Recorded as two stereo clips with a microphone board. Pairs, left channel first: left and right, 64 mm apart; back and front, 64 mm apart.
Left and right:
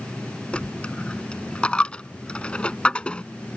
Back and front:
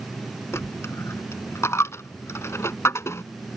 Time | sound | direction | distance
0.5 | a dropped coin | 155° left | ?